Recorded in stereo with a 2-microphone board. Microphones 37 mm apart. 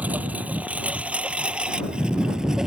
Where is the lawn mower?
45° right (ahead or behind); by 2.7 s 15° right (ahead or behind).